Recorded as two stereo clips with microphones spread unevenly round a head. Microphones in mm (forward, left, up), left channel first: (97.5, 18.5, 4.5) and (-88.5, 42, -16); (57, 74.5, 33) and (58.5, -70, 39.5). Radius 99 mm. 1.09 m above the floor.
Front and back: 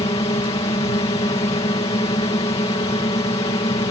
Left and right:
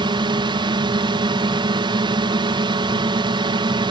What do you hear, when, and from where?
0.0 s a drone: 60° right